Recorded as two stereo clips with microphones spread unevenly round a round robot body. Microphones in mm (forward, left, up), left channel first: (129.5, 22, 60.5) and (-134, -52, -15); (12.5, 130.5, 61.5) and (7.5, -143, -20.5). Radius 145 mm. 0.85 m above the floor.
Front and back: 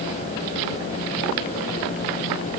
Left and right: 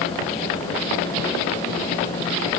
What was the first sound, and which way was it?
Only background noise.